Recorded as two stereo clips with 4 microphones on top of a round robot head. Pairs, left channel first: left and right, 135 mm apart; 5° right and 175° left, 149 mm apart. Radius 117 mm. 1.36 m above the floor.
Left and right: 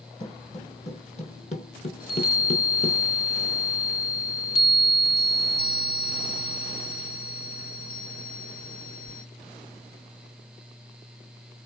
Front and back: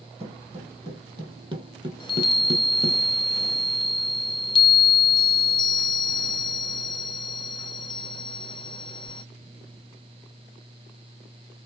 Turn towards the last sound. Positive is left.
turn(degrees=50)